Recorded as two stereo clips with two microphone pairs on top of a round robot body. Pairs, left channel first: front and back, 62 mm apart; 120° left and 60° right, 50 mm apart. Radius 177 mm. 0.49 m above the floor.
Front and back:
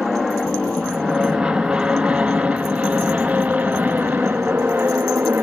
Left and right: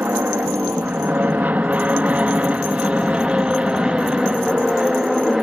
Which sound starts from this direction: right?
An aircraft, at 0.0 s.